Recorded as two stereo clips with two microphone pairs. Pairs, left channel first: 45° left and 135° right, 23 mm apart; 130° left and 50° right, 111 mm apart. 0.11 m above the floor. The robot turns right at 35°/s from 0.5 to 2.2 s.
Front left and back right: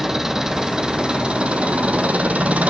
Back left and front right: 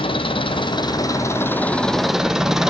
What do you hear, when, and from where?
0.0 s an engine running: 165° left, 1.4 m; by 2.7 s 135° right, 1.4 m